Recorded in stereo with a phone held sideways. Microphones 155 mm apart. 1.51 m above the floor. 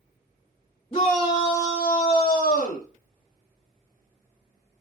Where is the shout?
35° left (ahead or behind), 0.9 m; by 2.9 s 55° left (ahead or behind), 0.6 m.